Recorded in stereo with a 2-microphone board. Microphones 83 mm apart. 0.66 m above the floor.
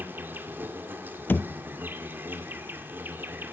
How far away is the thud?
About 0.7 m.